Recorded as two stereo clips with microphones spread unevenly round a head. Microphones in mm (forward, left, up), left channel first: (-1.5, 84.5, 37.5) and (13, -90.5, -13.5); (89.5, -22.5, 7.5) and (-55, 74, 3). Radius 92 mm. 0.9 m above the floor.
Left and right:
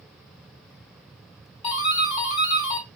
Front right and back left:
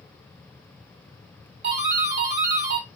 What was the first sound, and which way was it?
A doorbell, 160° left.